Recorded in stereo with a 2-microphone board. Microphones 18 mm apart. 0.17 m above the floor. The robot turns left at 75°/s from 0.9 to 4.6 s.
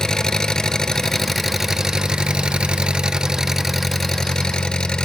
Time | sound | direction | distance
0.0 | an engine running | 45° left | 0.7 m